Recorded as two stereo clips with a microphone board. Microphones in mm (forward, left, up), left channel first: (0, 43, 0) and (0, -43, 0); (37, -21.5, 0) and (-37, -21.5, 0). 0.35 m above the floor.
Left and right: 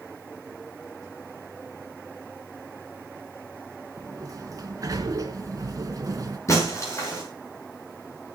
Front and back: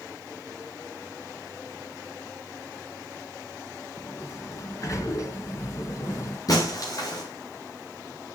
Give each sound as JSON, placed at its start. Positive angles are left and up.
{"t": 4.0, "sound": "a sliding door", "azimuth_deg": -45, "distance_m": 2.5}
{"t": 6.5, "sound": "breaking glass", "azimuth_deg": 35, "distance_m": 7.0}